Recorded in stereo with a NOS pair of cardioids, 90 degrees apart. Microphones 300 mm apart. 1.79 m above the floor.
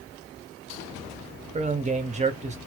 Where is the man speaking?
25° right, 1.4 m.